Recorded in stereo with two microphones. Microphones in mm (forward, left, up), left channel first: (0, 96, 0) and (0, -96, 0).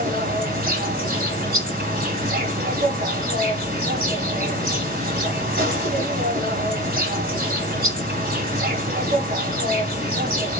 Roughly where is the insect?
Right.